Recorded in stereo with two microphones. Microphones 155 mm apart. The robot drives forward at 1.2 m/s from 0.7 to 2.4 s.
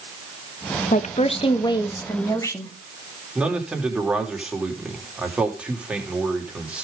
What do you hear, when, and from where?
0.9 s a woman speaking: 55° left (ahead or behind), 1.1 m; by 2.7 s 20° left (ahead or behind), 2.5 m
3.4 s a man speaking: 5° right (ahead or behind), 3 m